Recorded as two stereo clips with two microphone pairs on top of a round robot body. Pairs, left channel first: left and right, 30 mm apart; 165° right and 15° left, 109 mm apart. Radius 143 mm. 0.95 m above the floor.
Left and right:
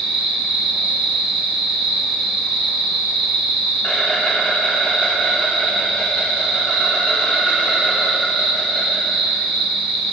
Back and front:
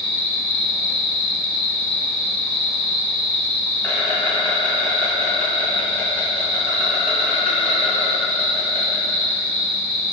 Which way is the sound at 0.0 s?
120° left.